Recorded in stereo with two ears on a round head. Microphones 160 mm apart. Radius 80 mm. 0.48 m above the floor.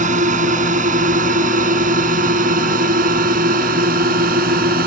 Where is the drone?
45° right (ahead or behind); by 4.9 s 55° right (ahead or behind).